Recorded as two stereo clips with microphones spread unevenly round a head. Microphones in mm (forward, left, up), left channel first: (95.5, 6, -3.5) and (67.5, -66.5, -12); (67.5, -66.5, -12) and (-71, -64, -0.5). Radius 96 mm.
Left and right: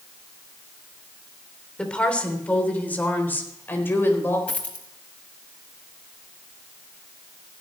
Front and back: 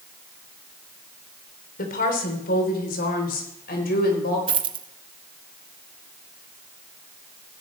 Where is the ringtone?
No ringtone in this recording.